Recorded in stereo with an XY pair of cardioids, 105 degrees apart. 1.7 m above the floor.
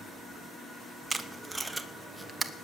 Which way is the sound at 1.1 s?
15° right.